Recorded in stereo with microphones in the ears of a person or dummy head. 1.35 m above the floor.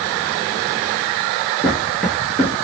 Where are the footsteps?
5° left (ahead or behind), 1.5 m.